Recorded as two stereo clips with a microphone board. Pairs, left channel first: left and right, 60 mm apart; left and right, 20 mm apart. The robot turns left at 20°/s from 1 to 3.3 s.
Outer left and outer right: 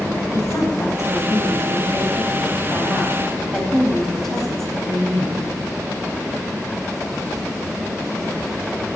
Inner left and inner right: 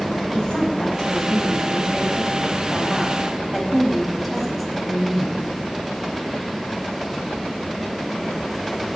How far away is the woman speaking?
About 4 m.